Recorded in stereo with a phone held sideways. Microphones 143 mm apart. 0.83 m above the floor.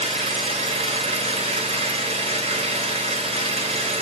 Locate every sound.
0.0 s an engine running: 45° right (ahead or behind), 0.8 m